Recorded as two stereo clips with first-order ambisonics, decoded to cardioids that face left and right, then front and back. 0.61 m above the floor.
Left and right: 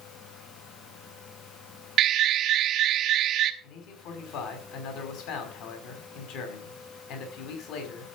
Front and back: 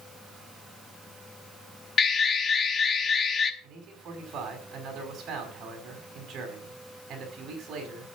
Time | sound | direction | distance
2.0 | an alarm | 50° right | 1.1 m
3.6 | a man speaking | 120° left | 5.5 m